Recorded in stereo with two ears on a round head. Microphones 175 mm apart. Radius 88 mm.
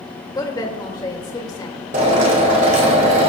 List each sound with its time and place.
0.3 s a woman speaking: 20° left (ahead or behind), 2.0 m
1.9 s a drill: 35° right (ahead or behind), 2.5 m